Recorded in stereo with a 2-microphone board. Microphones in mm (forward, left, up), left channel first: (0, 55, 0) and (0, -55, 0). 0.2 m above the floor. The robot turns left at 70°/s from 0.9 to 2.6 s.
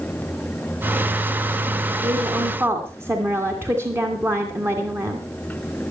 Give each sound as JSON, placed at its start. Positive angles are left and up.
{"t": 2.0, "sound": "a woman speaking", "azimuth_deg": -110, "distance_m": 2.5}